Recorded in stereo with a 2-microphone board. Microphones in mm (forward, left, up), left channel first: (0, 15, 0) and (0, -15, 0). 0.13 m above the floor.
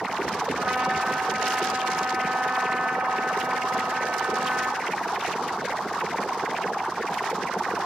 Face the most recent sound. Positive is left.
turn(degrees=-70)  # may be behind; listen again after turning